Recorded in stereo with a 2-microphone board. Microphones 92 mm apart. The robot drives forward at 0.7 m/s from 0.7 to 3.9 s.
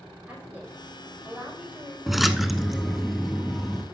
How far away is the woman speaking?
About 6 m.